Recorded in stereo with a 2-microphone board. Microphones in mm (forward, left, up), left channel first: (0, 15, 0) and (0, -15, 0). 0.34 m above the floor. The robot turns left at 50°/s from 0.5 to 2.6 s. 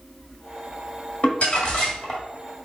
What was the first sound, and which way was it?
Crumpling, 75° left.